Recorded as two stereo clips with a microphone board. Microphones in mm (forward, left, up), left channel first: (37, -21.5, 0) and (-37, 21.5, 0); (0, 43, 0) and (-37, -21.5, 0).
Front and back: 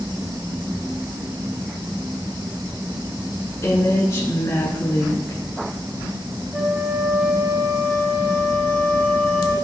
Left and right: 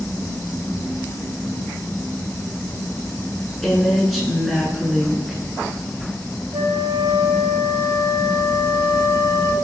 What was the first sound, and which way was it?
A woman speaking, 30° right.